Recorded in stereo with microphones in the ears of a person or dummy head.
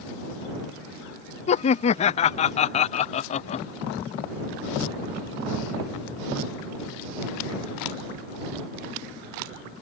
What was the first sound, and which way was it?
Laughter, 40° left (ahead or behind).